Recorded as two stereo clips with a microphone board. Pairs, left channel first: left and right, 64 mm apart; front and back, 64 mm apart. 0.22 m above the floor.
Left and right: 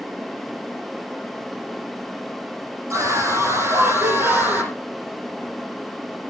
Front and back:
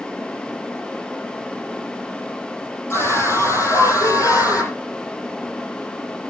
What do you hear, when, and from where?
2.9 s a scream: 50° right, 7.5 m; by 4.7 s 30° right, 8 m